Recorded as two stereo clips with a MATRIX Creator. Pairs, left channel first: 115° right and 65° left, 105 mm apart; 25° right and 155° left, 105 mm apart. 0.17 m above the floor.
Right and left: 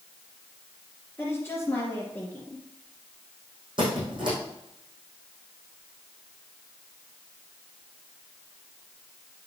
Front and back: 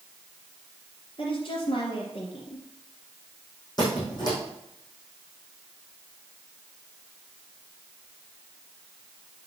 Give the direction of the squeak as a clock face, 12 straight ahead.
11 o'clock.